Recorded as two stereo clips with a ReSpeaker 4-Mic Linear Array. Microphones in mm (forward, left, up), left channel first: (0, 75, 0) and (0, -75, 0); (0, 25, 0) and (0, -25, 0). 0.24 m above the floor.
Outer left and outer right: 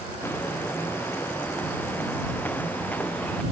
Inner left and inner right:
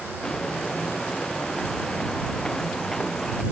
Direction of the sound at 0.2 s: 15° left (ahead or behind).